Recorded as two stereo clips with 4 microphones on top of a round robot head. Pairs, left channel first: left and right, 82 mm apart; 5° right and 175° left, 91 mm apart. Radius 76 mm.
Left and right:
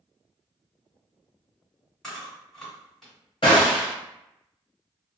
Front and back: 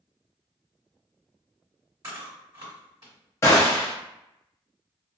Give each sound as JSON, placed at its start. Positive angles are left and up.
{"t": 2.0, "sound": "chewing", "azimuth_deg": 170, "distance_m": 1.5}
{"t": 3.4, "sound": "a gunshot", "azimuth_deg": 45, "distance_m": 0.6}